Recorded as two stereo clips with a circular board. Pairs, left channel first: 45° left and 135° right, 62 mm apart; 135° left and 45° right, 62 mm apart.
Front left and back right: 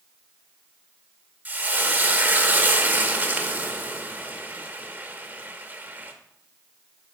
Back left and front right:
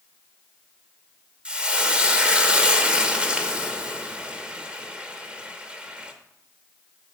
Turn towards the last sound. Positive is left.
turn(degrees=-105)